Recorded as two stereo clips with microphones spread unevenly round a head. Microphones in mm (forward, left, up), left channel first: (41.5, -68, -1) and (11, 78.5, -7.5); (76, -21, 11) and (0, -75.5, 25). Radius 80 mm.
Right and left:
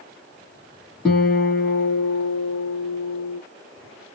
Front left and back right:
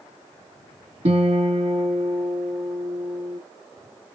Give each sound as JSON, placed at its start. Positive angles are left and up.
{"t": 1.1, "sound": "a guitar", "azimuth_deg": -170, "distance_m": 1.3}